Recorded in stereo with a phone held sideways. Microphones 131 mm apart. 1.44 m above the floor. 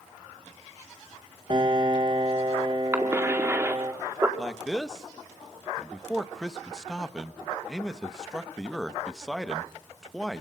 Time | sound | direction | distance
1.5 | a piano | 40° right (ahead or behind) | 2 m
2.9 | a cough | 20° right (ahead or behind) | 4 m
4.4 | a man speaking | 5° left (ahead or behind) | 1.3 m